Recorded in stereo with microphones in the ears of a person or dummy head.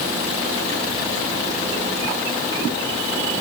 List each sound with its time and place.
Only background noise.